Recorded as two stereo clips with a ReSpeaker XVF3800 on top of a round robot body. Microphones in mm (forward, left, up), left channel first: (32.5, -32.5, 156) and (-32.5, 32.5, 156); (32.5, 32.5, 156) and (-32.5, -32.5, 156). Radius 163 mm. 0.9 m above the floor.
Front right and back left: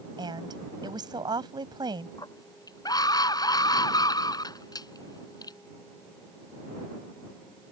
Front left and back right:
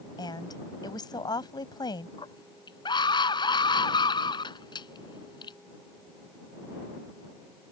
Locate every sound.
0.2 s a woman speaking: 90° left
2.2 s a scream: 5° left